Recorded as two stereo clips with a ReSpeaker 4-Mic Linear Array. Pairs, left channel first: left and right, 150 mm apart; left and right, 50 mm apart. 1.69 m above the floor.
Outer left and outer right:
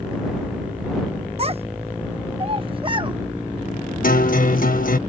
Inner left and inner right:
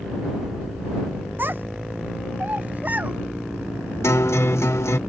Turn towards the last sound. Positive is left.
turn(degrees=70)  # may be behind; listen again after turning